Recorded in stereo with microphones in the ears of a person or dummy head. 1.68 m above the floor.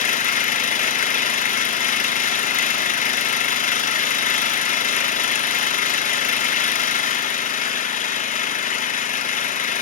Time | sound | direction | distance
0.0 | an engine running | 35° left (ahead or behind) | 0.9 m